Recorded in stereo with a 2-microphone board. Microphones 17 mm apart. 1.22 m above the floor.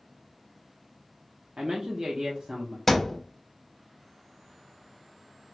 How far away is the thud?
About 0.6 m.